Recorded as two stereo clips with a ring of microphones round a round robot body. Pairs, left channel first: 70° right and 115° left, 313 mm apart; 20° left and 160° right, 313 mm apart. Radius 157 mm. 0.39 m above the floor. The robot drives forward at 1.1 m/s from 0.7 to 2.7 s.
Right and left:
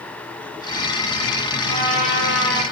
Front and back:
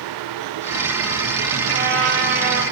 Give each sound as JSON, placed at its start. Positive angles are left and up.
{"t": 1.7, "sound": "a trumpet", "azimuth_deg": 145, "distance_m": 9.0}